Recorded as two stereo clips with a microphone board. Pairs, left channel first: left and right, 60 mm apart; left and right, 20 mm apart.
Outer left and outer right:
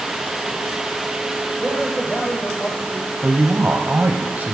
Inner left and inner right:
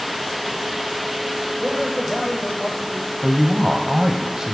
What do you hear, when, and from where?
1.6 s a man speaking: 20° left (ahead or behind), 8 m
3.2 s a woman speaking: 30° right (ahead or behind), 1.5 m